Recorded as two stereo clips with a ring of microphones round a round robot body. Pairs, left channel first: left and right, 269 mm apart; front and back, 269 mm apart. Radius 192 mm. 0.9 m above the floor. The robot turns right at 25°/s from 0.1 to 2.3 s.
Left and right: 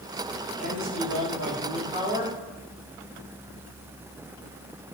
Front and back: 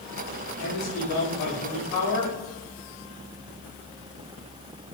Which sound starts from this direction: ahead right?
A man speaking, at 0.6 s.